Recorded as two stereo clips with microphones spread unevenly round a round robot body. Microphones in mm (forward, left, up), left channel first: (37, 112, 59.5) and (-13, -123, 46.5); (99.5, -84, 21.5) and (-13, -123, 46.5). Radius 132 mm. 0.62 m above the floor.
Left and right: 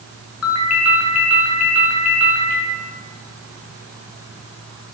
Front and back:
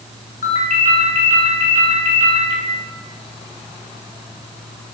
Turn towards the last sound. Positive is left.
turn(degrees=50)